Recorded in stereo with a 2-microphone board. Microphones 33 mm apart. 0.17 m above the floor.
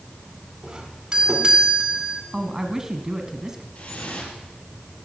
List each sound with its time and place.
0.6 s a doorbell: 20° right (ahead or behind), 2.5 m
2.3 s a man speaking: 15° right (ahead or behind), 1.7 m
3.8 s dripping: 50° left (ahead or behind), 4.5 m